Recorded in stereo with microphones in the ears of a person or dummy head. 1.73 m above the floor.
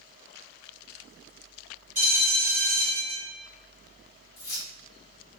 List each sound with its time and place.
1.9 s a bell: 15° right (ahead or behind), 1.9 m
4.4 s keys jangling: 35° left (ahead or behind), 1.3 m